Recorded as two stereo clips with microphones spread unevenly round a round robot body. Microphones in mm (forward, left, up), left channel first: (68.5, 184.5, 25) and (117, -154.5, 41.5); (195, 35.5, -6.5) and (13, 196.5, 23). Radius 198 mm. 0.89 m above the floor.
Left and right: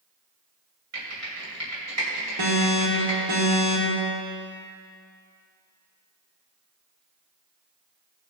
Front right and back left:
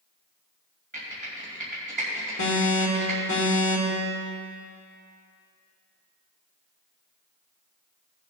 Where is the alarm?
65° right, 3 m.